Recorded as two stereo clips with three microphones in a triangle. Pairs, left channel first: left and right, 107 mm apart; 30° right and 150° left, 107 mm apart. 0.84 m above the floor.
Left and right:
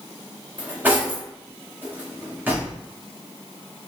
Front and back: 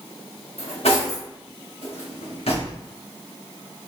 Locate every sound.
0.6 s cutlery clinking: 15° right, 1.0 m